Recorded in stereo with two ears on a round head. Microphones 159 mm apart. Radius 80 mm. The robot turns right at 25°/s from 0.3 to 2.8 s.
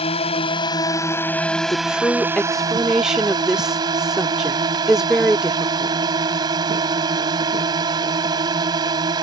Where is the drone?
145° left; by 9.2 s 155° right.